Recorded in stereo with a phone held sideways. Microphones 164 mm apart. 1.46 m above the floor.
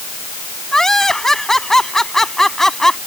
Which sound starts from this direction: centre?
Laughter, at 0.7 s.